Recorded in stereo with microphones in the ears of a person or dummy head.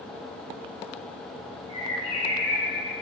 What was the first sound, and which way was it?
A bird, 30° left (ahead or behind).